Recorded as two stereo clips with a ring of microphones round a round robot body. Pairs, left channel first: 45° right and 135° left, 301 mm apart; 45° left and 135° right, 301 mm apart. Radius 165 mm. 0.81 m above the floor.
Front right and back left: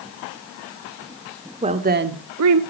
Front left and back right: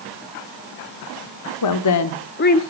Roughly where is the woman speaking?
Ahead left.